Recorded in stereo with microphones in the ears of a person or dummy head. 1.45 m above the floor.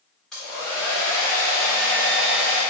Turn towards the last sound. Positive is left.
turn(degrees=5)  # may be behind; listen again after turning